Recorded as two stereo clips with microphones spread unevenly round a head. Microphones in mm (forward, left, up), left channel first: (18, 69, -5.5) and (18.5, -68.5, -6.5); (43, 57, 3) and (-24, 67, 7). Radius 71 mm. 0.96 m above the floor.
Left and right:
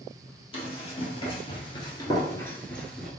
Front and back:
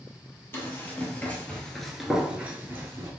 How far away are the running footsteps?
About 1.7 m.